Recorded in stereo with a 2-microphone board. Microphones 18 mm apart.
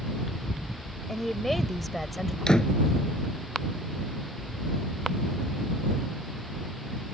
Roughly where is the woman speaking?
Centre.